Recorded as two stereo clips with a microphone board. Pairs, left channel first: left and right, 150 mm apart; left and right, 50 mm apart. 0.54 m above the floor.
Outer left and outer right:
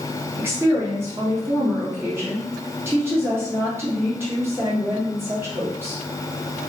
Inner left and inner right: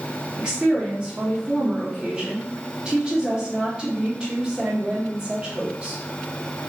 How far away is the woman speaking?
About 0.8 m.